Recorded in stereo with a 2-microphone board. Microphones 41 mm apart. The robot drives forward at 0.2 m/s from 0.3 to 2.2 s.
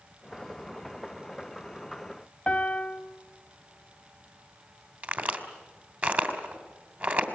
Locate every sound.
2.5 s a piano: 30° left (ahead or behind), 0.9 m
5.0 s a crack: 45° right (ahead or behind), 2.5 m